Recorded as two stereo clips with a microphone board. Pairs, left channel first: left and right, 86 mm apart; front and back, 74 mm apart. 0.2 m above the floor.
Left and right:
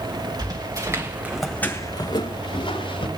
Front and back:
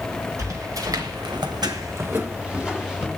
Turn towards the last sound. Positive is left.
turn(degrees=95)